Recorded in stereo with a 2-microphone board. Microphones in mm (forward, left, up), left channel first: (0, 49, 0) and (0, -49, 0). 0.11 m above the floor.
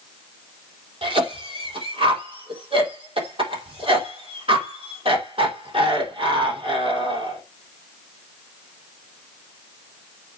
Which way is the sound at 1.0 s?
70° right (ahead or behind).